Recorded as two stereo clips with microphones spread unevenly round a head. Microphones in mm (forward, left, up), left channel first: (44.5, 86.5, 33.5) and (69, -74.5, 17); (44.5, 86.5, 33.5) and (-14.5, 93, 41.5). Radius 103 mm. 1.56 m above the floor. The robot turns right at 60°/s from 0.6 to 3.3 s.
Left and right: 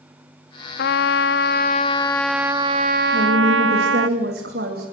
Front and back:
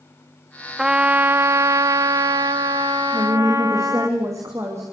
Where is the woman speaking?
135° right, 3 m; by 4.8 s 120° right, 3 m.